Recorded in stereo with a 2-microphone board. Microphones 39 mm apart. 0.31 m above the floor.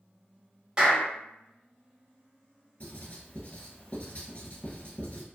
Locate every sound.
0.8 s a clap: 20° right (ahead or behind), 1.3 m
2.8 s writing: 40° left (ahead or behind), 0.8 m